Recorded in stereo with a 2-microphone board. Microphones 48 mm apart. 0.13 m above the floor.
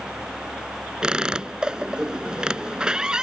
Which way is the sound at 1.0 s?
15° right (ahead or behind).